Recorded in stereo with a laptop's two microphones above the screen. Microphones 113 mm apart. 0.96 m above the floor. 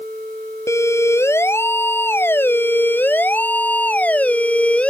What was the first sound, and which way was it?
A siren, 25° left (ahead or behind).